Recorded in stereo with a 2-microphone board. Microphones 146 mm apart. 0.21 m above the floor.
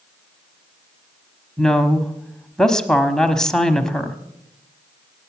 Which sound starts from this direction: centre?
A woman speaking, at 1.6 s.